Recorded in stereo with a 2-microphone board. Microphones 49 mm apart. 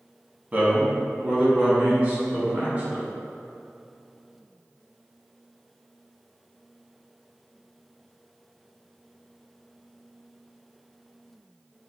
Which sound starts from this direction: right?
A man speaking, at 0.5 s.